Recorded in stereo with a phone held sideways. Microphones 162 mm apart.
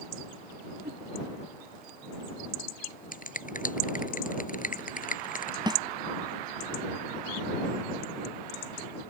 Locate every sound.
0.8 s a whoosh: 85° right
3.1 s a finger snap: 55° left (ahead or behind)
5.7 s a snare drum: 30° right (ahead or behind)